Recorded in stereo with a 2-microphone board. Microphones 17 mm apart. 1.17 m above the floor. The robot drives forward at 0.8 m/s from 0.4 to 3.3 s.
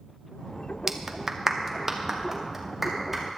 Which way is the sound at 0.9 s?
20° right (ahead or behind).